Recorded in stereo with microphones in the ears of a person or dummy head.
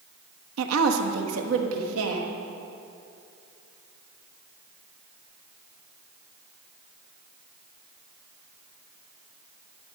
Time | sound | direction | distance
0.6 | a woman speaking | 85° right | 1.0 m